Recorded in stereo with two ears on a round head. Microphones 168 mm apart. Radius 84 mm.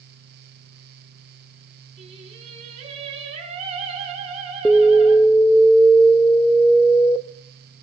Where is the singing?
30° right (ahead or behind), 4.5 m.